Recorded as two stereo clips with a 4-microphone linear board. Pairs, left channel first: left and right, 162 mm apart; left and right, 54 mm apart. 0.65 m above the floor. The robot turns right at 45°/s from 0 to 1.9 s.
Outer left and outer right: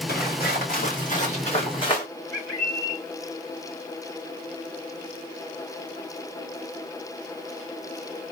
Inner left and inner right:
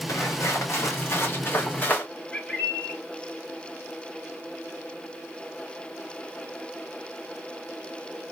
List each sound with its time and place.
0.1 s footsteps: 75° left (ahead or behind), 2 m; by 2.1 s 30° left (ahead or behind), 2.0 m
2.3 s a bird: 20° left (ahead or behind), 2.5 m